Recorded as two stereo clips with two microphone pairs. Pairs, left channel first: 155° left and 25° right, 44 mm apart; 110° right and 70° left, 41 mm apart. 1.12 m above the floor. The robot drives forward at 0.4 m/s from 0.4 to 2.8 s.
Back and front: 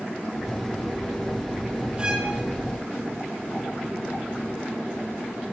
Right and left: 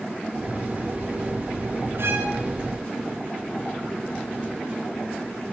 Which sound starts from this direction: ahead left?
A violin, at 2.0 s.